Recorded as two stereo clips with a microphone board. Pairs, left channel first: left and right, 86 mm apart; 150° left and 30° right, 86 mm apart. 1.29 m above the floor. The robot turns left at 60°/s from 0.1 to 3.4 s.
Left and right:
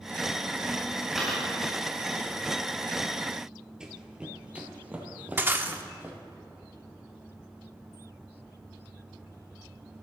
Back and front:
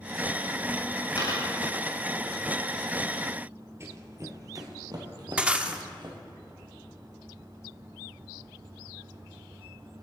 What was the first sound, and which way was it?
A dropped coin, straight behind.